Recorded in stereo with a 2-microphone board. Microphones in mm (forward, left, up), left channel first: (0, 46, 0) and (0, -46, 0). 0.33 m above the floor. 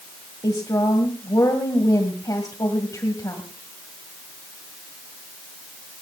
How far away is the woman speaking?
About 2.0 m.